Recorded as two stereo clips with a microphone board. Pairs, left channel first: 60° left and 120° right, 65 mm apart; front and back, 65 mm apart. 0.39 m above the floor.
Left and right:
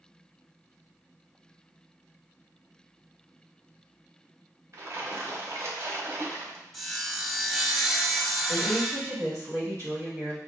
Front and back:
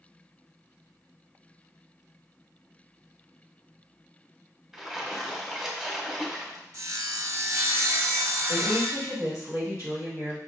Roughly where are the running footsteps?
No running footsteps in this recording.